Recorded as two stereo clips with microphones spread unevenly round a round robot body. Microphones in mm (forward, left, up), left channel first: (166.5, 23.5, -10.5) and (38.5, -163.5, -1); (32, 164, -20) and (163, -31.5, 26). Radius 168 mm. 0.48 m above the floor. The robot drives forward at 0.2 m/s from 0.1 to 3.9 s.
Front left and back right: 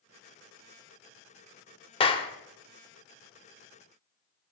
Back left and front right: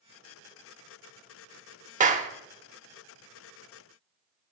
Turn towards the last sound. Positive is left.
turn(degrees=30)